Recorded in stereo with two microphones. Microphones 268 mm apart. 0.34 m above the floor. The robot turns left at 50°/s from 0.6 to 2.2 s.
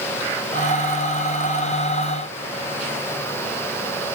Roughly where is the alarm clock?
No alarm clock in this recording.